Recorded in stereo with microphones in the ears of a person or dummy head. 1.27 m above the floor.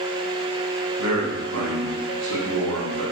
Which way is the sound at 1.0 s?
90° right.